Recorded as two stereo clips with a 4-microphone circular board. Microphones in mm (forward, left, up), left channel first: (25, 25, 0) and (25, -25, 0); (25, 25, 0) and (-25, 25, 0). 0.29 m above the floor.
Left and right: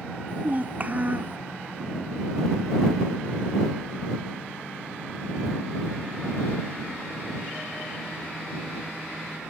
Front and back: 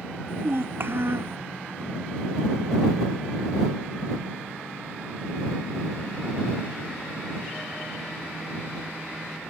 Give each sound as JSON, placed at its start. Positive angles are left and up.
{"t": 0.3, "sound": "a child speaking", "azimuth_deg": -145}